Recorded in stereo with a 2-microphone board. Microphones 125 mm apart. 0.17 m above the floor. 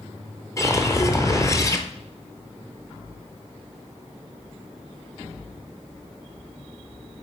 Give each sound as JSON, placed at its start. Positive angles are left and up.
{"t": 0.6, "sound": "a whoosh", "side_deg": 25, "distance_m": 1.0}